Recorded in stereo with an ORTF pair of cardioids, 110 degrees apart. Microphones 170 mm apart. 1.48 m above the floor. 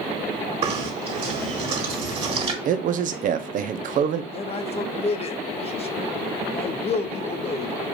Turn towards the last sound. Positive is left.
turn(degrees=35)